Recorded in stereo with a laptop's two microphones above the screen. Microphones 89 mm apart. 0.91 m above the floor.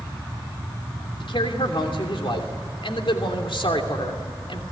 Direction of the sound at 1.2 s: 75° left (ahead or behind).